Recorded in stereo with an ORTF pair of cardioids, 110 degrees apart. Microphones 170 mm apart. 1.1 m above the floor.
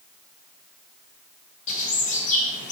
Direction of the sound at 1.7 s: 50° left.